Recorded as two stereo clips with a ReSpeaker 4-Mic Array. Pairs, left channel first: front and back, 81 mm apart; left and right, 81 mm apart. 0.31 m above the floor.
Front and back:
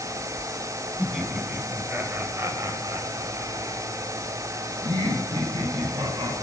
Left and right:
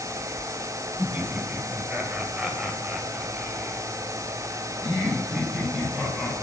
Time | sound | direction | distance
1.0 | laughter | 95° right | 1.5 m